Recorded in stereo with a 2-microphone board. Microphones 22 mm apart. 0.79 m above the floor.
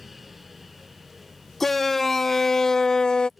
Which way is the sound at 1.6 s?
5° left (ahead or behind).